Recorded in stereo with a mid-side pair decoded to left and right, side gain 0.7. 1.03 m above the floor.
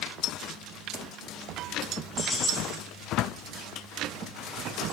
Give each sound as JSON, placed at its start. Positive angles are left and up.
{"t": 2.2, "sound": "keys jangling", "azimuth_deg": 20, "distance_m": 3.5}